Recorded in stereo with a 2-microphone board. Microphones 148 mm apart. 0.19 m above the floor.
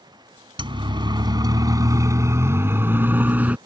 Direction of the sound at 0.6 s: 35° right (ahead or behind).